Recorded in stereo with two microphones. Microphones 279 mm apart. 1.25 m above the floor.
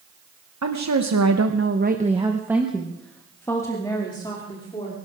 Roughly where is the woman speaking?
Right.